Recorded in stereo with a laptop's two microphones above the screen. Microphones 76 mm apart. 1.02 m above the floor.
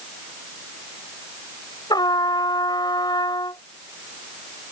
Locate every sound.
1.9 s a trumpet: 65° left (ahead or behind)